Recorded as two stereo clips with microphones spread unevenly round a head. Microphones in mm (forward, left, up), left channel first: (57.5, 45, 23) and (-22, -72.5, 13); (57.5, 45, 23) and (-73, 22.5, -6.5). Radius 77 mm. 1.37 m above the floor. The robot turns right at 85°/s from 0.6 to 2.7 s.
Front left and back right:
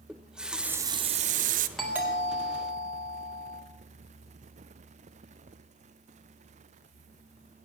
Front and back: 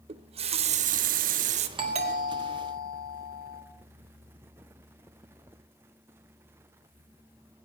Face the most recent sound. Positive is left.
turn(degrees=-140)